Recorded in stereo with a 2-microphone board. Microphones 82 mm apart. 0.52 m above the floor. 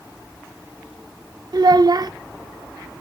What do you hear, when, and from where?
1.5 s a child speaking: 50° right (ahead or behind), 0.5 m